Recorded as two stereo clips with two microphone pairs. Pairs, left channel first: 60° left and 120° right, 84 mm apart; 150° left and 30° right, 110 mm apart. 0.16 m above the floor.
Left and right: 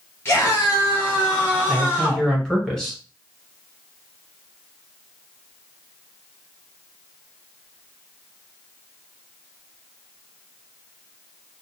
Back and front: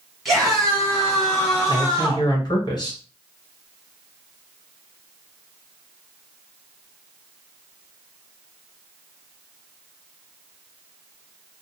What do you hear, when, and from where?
0.2 s a scream: 65° left, 1.3 m; by 2.3 s 125° left, 1.7 m
1.7 s a man speaking: 140° left, 1.5 m